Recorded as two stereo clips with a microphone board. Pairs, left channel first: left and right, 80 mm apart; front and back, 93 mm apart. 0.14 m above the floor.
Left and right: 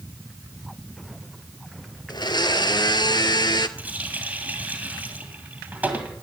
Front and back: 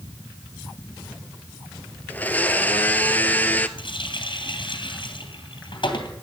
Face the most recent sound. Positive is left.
turn(degrees=-20)